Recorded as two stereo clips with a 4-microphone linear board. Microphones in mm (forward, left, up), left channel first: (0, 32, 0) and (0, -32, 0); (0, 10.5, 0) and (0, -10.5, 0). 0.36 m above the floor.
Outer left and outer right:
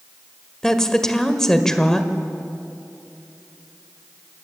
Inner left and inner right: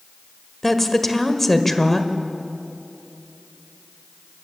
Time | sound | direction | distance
0.6 | a woman speaking | 10° left (ahead or behind) | 1.6 m